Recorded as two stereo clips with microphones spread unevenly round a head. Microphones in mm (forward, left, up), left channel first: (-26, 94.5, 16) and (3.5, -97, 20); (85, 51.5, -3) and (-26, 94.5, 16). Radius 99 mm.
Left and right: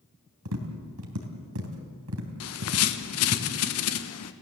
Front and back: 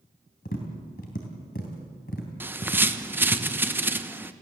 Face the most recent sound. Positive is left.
turn(degrees=85)